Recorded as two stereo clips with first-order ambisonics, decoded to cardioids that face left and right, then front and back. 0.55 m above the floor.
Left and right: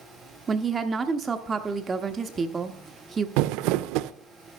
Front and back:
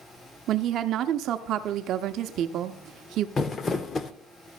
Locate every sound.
0.5 s a woman speaking: 160° right, 0.7 m
3.4 s crumpling: 70° right, 0.5 m